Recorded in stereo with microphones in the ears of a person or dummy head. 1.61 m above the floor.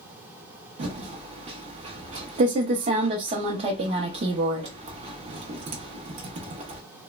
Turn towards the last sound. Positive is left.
turn(degrees=-30)  # may be behind; listen again after turning